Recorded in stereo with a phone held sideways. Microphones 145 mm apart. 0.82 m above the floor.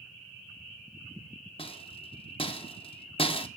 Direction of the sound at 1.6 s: 40° left (ahead or behind).